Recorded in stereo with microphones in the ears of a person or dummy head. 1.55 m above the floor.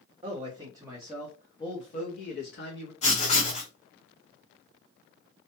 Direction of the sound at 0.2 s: 30° right (ahead or behind).